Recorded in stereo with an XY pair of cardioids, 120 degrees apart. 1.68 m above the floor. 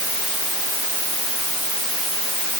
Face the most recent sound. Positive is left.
No sound to turn to.